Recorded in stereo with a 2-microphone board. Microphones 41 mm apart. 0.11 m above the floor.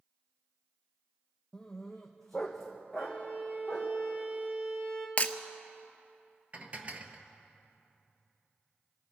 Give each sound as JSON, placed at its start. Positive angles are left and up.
{"t": 1.5, "sound": "a dog barking", "side_deg": 15, "distance_m": 1.5}
{"t": 3.0, "sound": "a violin", "side_deg": -50, "distance_m": 3.0}
{"t": 5.2, "sound": "breaking glass", "side_deg": 35, "distance_m": 0.8}
{"t": 6.5, "sound": "dishes clattering", "side_deg": -35, "distance_m": 1.3}